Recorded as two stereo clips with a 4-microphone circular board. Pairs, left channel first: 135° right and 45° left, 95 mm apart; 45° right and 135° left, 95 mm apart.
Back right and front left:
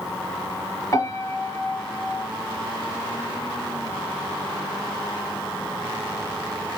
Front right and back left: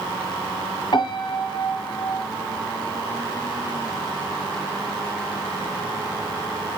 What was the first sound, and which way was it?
A piano, 85° right.